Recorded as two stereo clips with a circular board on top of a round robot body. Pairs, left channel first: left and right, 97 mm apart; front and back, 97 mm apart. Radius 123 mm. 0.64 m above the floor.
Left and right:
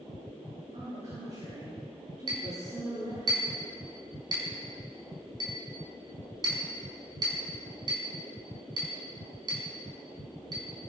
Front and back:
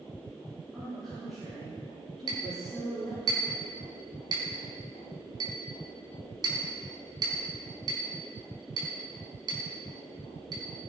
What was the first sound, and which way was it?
A woman speaking, 90° right.